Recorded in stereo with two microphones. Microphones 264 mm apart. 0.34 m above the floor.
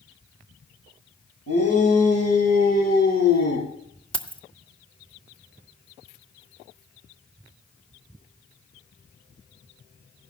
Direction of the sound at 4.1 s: 20° left (ahead or behind).